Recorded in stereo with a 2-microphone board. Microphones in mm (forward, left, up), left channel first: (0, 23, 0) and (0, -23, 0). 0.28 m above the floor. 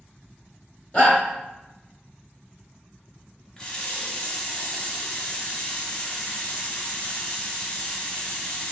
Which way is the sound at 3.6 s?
15° left (ahead or behind).